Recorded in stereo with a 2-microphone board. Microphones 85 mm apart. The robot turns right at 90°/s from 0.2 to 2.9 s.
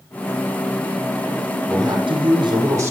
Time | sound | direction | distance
1.7 | a man speaking | 130° right | 7.5 m